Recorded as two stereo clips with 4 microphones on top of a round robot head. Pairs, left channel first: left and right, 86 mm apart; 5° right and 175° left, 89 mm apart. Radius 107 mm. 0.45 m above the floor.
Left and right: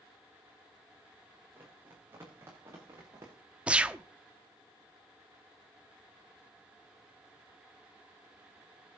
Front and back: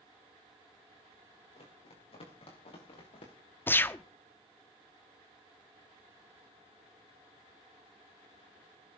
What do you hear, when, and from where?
1.6 s running footsteps: 20° right, 5.5 m; by 3.3 s 30° right, 5.5 m
3.7 s a gunshot: 30° right, 0.9 m